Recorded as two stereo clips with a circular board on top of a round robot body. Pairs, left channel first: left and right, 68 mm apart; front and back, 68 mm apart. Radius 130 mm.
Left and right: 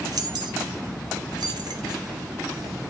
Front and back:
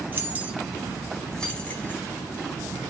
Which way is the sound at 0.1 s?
120° right.